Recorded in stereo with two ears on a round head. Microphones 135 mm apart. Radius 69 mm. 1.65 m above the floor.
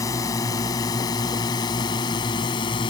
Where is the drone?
20° left (ahead or behind); by 2.9 s 30° left (ahead or behind).